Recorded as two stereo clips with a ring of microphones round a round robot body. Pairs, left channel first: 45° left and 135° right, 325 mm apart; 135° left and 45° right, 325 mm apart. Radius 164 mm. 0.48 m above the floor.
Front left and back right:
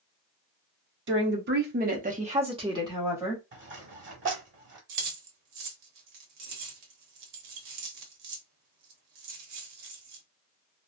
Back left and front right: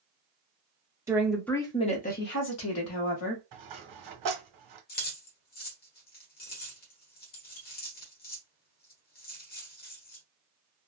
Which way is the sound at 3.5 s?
80° right.